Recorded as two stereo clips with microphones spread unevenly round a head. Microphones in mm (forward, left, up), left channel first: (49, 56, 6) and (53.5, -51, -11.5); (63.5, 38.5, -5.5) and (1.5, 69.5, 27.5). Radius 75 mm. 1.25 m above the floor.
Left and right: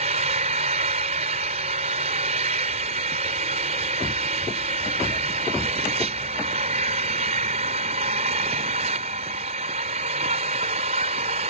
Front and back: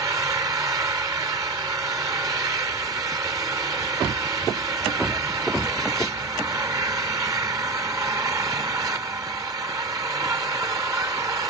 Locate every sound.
0.0 s an engine running: 135° right